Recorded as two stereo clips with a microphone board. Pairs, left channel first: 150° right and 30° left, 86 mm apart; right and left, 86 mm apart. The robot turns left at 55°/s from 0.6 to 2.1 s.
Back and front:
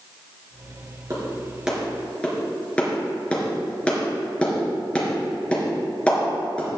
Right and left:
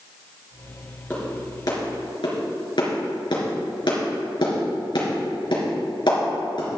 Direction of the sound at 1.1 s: 20° right.